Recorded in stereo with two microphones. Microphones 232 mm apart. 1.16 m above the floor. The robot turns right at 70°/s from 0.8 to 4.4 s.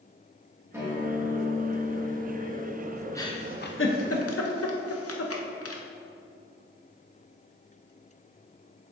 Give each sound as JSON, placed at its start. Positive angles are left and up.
{"t": 0.7, "sound": "a guitar", "azimuth_deg": -170, "distance_m": 2.0}
{"t": 3.1, "sound": "a giggle", "side_deg": 15, "distance_m": 0.7}